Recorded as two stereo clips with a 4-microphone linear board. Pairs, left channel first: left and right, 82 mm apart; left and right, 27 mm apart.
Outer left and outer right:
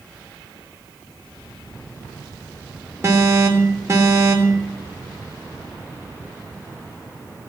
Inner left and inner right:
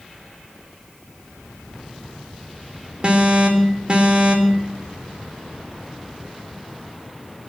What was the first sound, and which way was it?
An alarm, 35° right (ahead or behind).